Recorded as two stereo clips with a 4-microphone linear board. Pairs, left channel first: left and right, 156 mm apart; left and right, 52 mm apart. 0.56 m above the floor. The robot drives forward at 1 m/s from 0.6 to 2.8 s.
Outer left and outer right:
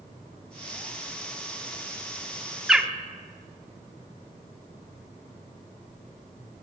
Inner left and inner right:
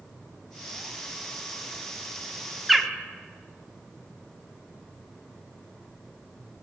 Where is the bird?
5° right (ahead or behind), 0.5 m.